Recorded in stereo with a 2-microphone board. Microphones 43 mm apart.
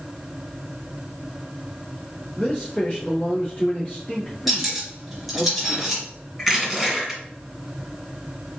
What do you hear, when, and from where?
2.4 s a man speaking: 25° left (ahead or behind), 1.9 m
4.5 s cutlery clinking: centre (ahead or behind), 2 m
6.4 s crushing: centre (ahead or behind), 1.9 m